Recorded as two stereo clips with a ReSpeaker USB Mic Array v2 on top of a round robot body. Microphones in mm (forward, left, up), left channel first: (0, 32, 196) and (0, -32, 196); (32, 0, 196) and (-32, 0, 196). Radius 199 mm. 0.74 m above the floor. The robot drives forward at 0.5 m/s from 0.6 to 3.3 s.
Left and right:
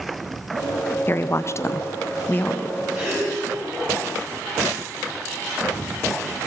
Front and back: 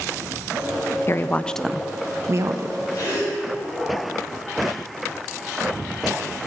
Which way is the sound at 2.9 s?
30° right.